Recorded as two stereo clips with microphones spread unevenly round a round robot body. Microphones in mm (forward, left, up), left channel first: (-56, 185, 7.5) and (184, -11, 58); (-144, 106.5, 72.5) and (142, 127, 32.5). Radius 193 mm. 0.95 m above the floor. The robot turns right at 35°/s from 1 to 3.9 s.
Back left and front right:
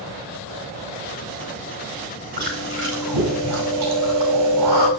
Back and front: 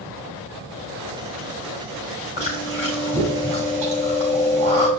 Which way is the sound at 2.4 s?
105° right.